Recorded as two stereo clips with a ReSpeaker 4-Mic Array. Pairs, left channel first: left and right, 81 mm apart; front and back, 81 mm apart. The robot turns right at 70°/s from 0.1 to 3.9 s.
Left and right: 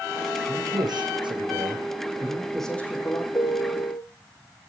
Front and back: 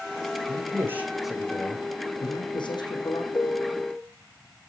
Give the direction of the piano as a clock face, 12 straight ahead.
10 o'clock.